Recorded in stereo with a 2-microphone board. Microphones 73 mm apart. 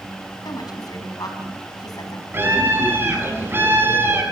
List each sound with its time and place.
0.5 s a woman speaking: 60° left (ahead or behind), 4 m
2.3 s a scream: 30° right (ahead or behind), 6 m